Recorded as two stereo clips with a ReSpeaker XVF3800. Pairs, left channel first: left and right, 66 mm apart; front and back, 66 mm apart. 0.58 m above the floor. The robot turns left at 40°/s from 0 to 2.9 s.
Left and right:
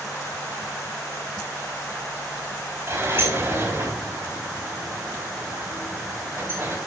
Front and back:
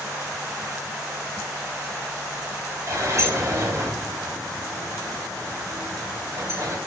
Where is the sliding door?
140° right, 3.5 m.